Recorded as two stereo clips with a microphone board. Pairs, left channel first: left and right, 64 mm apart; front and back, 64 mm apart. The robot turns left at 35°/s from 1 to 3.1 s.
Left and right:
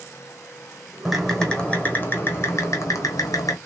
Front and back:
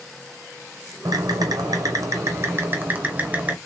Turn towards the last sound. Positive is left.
turn(degrees=110)